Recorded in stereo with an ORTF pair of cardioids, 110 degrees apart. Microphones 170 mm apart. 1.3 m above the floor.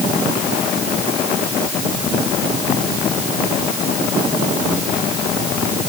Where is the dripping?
No dripping in this recording.